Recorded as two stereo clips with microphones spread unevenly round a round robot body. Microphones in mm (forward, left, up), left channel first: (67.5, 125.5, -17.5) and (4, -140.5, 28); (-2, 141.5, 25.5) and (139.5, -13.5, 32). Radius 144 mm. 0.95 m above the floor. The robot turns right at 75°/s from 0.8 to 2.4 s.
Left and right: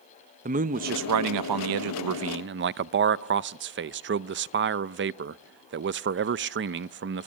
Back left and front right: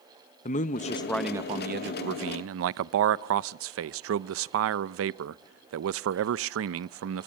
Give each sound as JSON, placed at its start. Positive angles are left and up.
{"t": 0.5, "sound": "a man speaking", "azimuth_deg": -170, "distance_m": 0.5}